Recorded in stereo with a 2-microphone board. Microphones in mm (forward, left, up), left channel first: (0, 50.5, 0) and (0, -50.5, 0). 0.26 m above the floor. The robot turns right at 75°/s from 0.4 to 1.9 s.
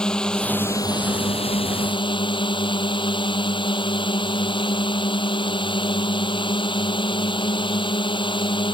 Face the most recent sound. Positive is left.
turn(degrees=120)